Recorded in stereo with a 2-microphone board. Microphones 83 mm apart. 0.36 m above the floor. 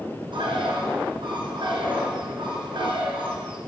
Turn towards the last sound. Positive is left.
turn(degrees=-80)